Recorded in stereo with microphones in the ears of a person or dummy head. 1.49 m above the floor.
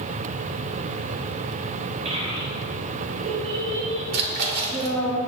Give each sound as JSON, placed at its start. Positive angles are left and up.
{"t": 2.0, "sound": "a child speaking", "side_deg": -35, "distance_m": 2.5}
{"t": 4.1, "sound": "a splash", "side_deg": -60, "distance_m": 2.5}